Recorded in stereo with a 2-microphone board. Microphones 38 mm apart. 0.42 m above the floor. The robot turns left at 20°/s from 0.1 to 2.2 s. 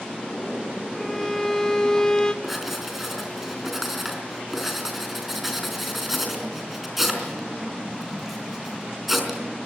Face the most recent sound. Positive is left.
turn(degrees=-5)  # may be behind; listen again after turning